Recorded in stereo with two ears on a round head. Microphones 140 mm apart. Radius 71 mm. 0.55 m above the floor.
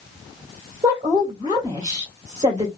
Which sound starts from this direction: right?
A woman speaking, at 0.8 s.